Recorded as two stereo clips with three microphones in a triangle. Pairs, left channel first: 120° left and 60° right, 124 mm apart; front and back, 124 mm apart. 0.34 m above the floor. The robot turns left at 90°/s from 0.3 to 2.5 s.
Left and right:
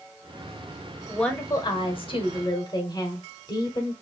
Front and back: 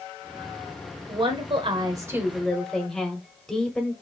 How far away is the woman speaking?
About 1.1 m.